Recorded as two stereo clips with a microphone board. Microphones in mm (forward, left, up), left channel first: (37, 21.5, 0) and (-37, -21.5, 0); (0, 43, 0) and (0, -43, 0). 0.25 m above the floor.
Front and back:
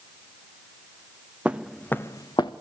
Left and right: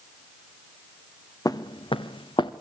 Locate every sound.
1.4 s footsteps: 135° left, 1.0 m; by 2.5 s 60° left, 1.2 m